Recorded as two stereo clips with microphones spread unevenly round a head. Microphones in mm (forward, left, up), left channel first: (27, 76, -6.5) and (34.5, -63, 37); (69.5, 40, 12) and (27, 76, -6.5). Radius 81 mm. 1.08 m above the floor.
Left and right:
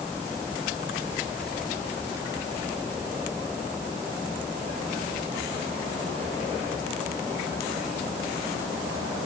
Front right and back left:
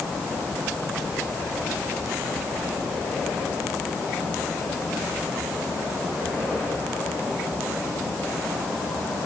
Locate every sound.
Only background noise.